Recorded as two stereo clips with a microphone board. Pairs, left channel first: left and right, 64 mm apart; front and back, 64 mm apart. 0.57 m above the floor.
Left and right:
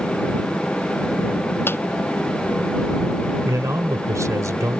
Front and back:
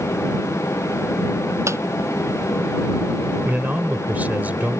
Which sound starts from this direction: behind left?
A squeak, at 1.7 s.